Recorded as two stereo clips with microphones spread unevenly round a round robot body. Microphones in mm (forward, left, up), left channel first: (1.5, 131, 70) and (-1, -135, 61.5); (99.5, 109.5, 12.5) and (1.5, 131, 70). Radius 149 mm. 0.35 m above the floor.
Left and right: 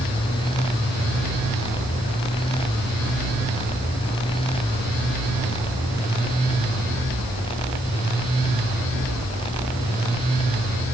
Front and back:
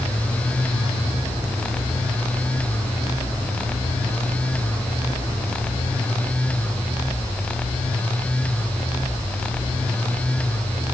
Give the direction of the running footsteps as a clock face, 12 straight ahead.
No running footsteps in this recording.